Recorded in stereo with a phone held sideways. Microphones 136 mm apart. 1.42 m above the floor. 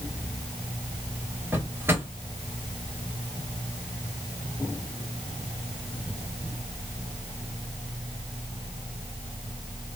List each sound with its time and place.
1.5 s a drawer: 15° right (ahead or behind), 1.7 m